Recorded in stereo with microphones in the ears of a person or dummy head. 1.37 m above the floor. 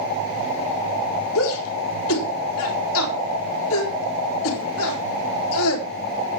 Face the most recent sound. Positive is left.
turn(degrees=75)  # may be behind; listen again after turning